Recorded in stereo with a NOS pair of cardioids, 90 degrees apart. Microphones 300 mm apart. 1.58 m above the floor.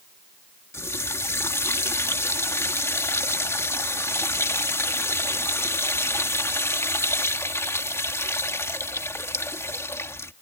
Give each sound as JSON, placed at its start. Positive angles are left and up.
{"t": 0.7, "sound": "a running tap", "azimuth_deg": 10}